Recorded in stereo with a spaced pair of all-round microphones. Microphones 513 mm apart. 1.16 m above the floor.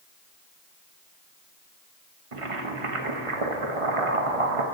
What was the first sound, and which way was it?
Boiling, 85° right.